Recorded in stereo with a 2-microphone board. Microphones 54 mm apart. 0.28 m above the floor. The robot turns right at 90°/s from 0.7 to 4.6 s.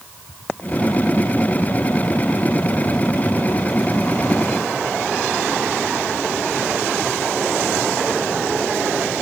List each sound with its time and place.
Only background noise.